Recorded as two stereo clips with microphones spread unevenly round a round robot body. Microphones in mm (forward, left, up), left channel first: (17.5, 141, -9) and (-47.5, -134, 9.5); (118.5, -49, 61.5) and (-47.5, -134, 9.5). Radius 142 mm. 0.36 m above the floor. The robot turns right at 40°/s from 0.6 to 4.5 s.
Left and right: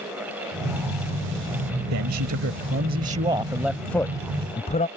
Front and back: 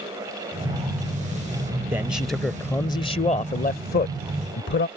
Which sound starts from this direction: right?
A man speaking, at 1.9 s.